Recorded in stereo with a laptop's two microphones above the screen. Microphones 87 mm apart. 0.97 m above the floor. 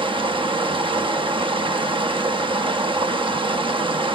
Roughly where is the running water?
Right.